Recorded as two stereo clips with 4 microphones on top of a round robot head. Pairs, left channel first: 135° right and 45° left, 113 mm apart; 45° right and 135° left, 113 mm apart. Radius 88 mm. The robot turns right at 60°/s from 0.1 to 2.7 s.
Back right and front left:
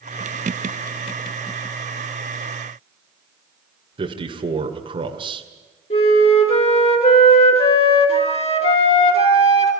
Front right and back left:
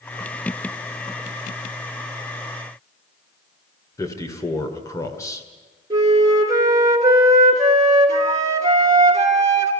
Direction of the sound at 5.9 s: 165° right.